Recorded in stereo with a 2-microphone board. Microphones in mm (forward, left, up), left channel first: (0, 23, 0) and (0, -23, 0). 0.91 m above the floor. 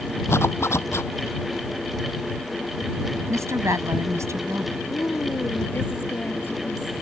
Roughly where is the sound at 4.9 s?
Left.